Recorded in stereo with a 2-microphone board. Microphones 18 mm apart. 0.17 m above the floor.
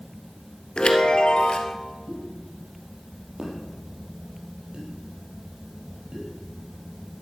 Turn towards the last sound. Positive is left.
turn(degrees=-55)  # may be behind; listen again after turning